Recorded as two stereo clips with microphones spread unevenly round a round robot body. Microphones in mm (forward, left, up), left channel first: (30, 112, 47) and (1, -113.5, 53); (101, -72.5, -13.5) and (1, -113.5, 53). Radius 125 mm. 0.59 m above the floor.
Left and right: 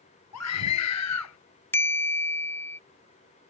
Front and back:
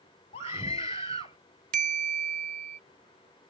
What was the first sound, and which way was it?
A scream, 80° left.